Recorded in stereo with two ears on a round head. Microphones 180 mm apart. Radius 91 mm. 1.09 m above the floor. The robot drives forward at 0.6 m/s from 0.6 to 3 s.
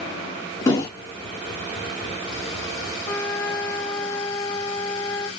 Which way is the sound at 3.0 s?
10° left (ahead or behind).